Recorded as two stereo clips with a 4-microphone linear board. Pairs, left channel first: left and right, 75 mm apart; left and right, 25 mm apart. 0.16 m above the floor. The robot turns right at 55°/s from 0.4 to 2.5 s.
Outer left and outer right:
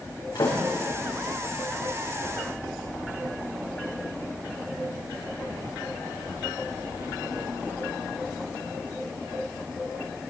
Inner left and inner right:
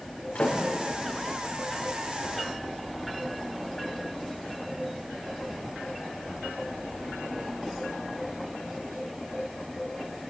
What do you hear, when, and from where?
0.3 s a door slam: 85° left, 7.5 m; by 0.6 s 80° left, 7.5 m